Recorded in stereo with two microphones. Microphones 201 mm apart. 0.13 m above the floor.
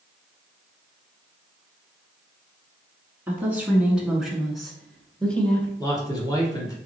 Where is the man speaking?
15° left (ahead or behind), 1.2 m.